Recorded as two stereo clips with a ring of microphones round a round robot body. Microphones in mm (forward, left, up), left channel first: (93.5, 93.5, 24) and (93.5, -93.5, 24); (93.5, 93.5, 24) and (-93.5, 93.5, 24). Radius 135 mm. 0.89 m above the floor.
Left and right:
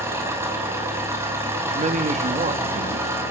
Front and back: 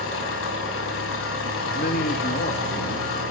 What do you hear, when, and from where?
0.0 s an engine running: 15° right, 5.5 m
1.6 s a man speaking: 45° right, 1.6 m